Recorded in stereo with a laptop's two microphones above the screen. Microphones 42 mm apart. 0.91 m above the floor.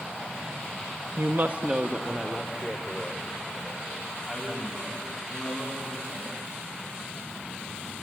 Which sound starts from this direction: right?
A woman speaking, at 1.2 s.